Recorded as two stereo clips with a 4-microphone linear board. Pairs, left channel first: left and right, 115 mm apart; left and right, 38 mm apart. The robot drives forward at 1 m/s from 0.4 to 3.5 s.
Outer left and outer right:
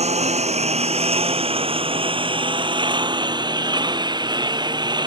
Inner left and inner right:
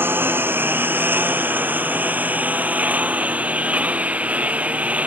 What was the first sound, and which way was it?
A lawn mower, 70° right (ahead or behind).